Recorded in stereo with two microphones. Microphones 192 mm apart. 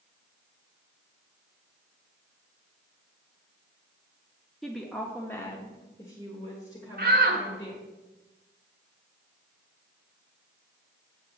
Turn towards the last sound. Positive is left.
turn(degrees=-55)  # may be behind; listen again after turning